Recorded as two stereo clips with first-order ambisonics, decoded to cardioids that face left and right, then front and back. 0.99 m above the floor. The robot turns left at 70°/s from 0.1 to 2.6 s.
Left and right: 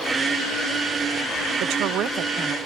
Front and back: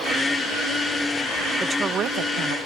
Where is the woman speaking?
100° right, 0.7 m; by 2.6 s 170° right, 0.7 m.